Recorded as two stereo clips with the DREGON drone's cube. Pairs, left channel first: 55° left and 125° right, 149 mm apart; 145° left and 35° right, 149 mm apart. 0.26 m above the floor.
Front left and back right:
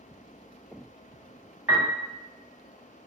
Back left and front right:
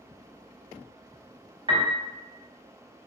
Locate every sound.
1.7 s a piano: 50° right, 0.8 m